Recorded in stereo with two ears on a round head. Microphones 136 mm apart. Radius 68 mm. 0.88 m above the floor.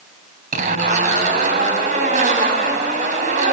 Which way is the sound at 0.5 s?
60° right (ahead or behind).